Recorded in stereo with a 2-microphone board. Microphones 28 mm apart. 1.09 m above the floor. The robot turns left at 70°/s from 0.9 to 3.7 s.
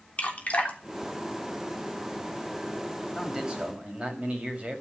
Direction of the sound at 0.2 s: 50° left (ahead or behind).